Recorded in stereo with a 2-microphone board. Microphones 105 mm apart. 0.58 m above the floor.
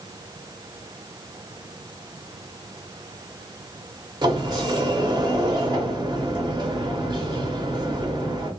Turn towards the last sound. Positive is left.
turn(degrees=-40)  # may be behind; listen again after turning